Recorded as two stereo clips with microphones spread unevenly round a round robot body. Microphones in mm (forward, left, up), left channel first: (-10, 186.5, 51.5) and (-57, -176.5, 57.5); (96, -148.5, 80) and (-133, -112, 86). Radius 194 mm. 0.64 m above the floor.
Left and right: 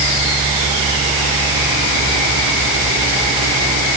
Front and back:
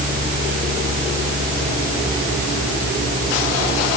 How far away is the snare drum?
I don't hear a snare drum.